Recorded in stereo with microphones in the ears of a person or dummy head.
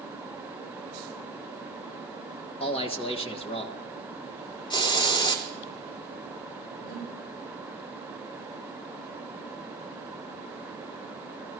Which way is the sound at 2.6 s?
35° left (ahead or behind).